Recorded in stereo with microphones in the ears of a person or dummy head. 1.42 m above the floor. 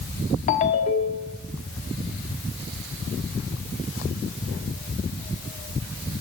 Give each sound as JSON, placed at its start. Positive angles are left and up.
{"t": 0.5, "sound": "a ringtone", "side_deg": 30, "distance_m": 1.1}